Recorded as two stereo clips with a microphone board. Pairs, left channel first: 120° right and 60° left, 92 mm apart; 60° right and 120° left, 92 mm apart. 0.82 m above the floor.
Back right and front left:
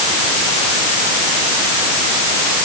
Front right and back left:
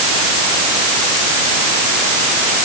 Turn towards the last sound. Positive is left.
No sound to turn to.